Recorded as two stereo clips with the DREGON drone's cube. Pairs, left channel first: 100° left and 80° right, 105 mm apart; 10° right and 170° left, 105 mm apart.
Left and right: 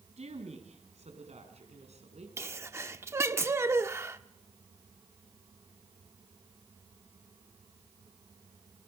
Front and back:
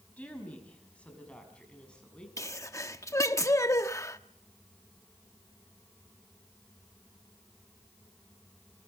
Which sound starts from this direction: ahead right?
A sneeze, at 2.4 s.